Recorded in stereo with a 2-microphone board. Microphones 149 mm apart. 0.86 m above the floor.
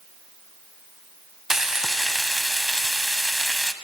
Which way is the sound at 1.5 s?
5° right (ahead or behind).